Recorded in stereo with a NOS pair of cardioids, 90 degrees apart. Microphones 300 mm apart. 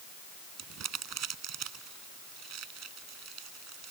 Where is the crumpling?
60° right.